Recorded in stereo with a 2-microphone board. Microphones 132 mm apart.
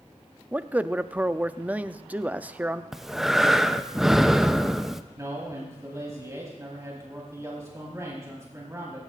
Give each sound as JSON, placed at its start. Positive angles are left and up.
{"t": 0.5, "sound": "a man speaking", "side_deg": -10, "distance_m": 0.5}
{"t": 2.9, "sound": "breathing", "side_deg": -5, "distance_m": 0.6}
{"t": 5.2, "sound": "a man speaking", "side_deg": -25, "distance_m": 4.0}